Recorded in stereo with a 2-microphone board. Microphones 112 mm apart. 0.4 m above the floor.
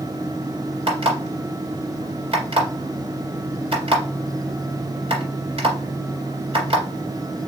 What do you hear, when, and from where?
0.9 s an alarm clock: 60° right (ahead or behind), 1.9 m